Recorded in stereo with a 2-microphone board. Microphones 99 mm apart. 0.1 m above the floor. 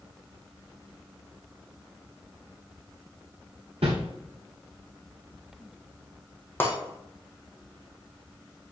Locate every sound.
3.8 s a whoosh: 80° right, 3.5 m
6.6 s breaking glass: 20° left (ahead or behind), 2.5 m